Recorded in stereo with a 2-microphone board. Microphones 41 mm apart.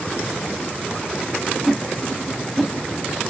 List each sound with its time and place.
1.6 s a whoosh: centre (ahead or behind), 0.8 m